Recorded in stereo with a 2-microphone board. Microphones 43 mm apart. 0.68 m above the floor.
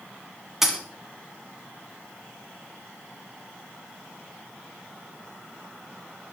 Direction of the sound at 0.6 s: 10° right (ahead or behind).